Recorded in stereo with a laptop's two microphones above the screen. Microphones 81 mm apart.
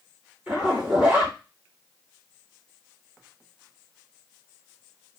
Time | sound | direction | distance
0.5 | a zipper | 20° right (ahead or behind) | 3 m